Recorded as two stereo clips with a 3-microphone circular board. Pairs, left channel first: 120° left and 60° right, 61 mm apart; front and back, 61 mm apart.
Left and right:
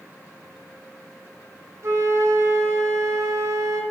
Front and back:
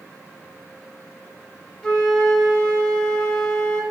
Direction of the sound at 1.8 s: 75° right.